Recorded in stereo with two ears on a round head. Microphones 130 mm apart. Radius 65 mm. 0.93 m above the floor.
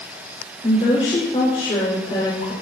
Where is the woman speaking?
45° left (ahead or behind), 4.5 m.